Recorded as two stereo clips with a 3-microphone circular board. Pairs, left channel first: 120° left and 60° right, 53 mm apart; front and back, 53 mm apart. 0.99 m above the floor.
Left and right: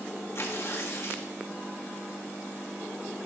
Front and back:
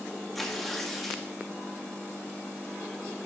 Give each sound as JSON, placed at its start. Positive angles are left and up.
{"t": 0.3, "sound": "tearing paper", "azimuth_deg": 90, "distance_m": 1.8}